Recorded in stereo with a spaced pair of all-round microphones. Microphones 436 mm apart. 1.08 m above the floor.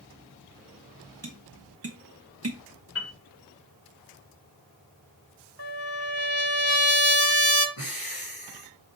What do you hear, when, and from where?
1.2 s tapping: 35° right (ahead or behind), 1.0 m
3.0 s a piano: 30° left (ahead or behind), 1.8 m
5.6 s a trumpet: 55° right (ahead or behind), 1.3 m
7.8 s breathing: 50° left (ahead or behind), 2.5 m